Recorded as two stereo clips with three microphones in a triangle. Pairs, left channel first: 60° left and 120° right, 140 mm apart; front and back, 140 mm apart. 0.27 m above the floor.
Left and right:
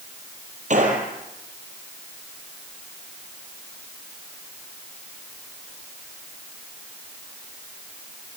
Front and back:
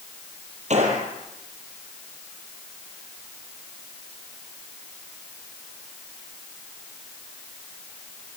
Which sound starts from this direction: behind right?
A gunshot, at 0.7 s.